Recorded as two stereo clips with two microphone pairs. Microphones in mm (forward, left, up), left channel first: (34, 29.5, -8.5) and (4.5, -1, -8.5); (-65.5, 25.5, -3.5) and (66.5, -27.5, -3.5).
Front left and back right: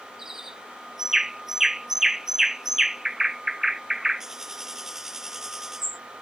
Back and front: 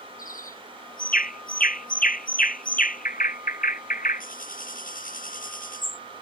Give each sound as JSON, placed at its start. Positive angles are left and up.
{"t": 0.2, "sound": "a bird", "azimuth_deg": 150}